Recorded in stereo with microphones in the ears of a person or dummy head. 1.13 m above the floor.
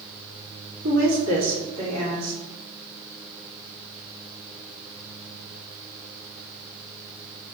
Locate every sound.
0.8 s a woman speaking: 70° right (ahead or behind), 1.8 m